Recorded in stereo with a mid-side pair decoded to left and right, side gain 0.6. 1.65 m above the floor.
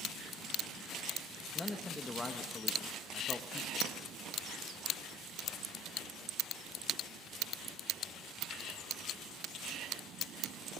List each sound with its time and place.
1.6 s a man speaking: 15° left, 1.7 m
3.8 s a clink: 65° right, 1.9 m